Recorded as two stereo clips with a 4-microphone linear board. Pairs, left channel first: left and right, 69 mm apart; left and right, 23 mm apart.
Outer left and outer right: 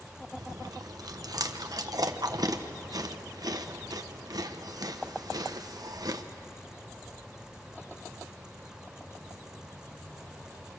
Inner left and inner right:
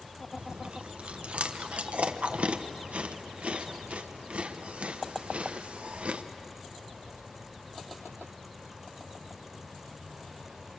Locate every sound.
0.4 s chewing: 65° right (ahead or behind), 1.0 m